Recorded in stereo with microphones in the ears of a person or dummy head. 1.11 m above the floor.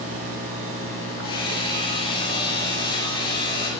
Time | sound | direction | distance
1.2 | hammering | 20° left (ahead or behind) | 2.5 m